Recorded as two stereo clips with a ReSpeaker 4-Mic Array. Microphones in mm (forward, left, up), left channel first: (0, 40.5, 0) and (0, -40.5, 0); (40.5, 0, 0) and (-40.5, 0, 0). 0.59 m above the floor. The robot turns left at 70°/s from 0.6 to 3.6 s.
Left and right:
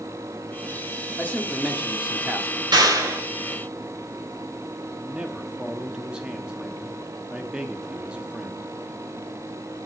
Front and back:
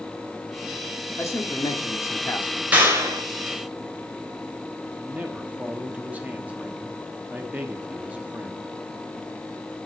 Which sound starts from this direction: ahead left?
A man speaking, at 1.2 s.